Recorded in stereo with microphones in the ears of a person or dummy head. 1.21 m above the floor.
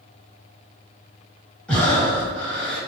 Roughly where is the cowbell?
I don't hear a cowbell.